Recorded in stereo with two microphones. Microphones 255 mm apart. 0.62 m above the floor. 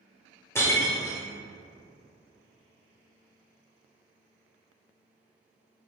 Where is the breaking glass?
10° left (ahead or behind), 1.2 m.